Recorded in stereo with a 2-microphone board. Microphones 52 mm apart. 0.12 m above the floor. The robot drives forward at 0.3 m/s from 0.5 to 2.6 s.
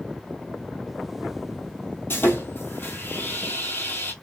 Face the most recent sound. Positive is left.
turn(degrees=40)  # may be behind; listen again after turning